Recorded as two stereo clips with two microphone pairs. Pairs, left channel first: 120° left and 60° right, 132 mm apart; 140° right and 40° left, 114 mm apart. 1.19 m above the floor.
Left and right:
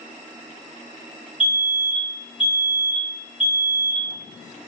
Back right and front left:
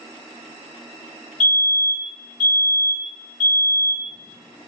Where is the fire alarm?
140° left, 1.6 m.